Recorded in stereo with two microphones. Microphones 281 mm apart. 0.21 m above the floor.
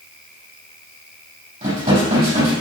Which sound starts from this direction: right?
Dishes clattering, at 1.6 s.